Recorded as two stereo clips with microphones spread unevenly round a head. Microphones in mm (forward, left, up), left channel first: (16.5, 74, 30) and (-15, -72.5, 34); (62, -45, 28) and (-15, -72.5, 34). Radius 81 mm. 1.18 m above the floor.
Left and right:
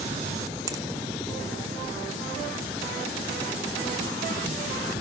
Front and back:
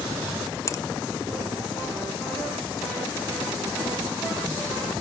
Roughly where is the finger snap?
Ahead right.